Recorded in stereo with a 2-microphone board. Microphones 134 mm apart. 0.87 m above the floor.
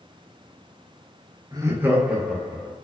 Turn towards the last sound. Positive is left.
turn(degrees=10)  # may be behind; listen again after turning